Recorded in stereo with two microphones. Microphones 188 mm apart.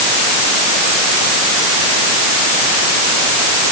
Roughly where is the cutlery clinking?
I don't hear cutlery clinking.